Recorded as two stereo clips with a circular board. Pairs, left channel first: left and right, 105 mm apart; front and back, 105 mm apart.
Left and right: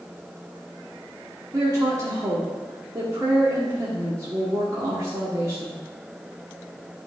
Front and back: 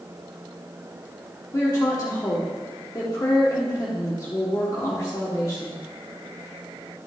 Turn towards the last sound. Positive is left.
turn(degrees=-45)